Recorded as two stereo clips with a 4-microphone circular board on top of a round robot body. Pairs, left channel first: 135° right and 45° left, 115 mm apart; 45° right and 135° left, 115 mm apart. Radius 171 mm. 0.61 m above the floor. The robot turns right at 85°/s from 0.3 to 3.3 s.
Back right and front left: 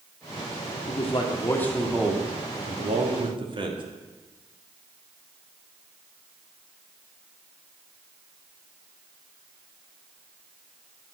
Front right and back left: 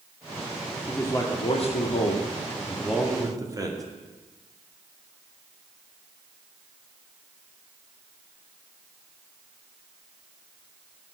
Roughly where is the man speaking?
Behind right.